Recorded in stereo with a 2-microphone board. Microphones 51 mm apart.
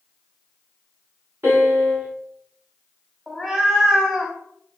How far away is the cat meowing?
About 0.7 m.